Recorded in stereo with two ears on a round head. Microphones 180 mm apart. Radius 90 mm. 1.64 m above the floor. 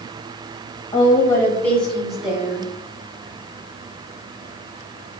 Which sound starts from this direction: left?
A woman speaking, at 0.9 s.